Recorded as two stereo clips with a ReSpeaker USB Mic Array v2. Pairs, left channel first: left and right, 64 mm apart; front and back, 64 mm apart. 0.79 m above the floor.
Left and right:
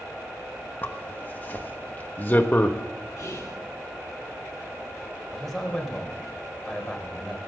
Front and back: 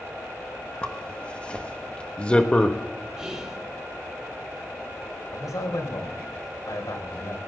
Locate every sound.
0.8 s a zipper: 55° left, 1.2 m
3.2 s whispering: 110° left, 1.9 m
5.3 s a man speaking: 5° left, 3.5 m